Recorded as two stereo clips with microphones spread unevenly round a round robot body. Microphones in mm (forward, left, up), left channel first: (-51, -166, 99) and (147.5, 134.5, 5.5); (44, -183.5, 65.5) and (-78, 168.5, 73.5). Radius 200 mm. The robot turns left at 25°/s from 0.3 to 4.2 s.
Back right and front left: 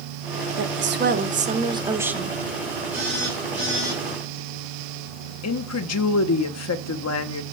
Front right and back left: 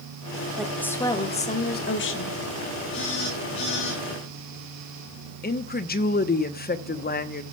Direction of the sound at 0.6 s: 20° left.